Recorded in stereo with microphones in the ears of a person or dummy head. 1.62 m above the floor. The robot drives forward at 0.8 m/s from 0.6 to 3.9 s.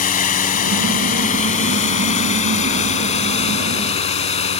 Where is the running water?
40° left (ahead or behind); by 4.6 s 30° left (ahead or behind).